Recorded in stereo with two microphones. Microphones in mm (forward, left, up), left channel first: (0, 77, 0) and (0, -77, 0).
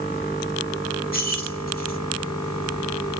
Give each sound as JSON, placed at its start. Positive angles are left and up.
{"t": 1.1, "sound": "keys jangling", "side_deg": 75, "distance_m": 4.0}